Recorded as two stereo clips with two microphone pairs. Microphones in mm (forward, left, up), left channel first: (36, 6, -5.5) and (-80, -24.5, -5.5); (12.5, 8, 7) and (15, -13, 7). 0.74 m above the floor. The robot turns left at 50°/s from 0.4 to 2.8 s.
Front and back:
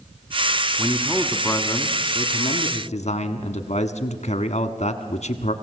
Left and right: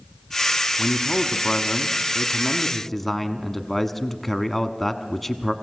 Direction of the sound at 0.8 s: 115° left.